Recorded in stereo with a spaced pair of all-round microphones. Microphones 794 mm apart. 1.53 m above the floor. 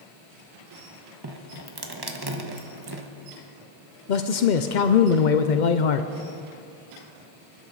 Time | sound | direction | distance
1.2 | dripping | 30° right (ahead or behind) | 1.3 m
4.1 | a man speaking | 70° left (ahead or behind) | 0.8 m